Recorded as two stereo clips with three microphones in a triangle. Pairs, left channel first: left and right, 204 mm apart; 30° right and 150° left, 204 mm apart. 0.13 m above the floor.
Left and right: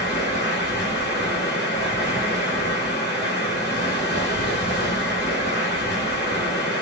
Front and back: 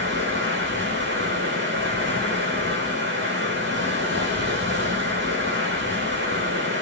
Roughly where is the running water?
Behind left.